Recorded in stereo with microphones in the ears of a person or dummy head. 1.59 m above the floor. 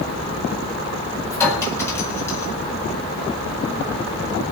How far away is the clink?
About 9 m.